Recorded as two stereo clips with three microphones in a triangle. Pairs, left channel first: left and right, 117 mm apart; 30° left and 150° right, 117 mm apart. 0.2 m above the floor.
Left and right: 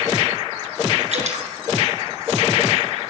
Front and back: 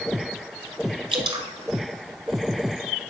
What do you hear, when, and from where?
1.1 s dripping: 105° right, 1.4 m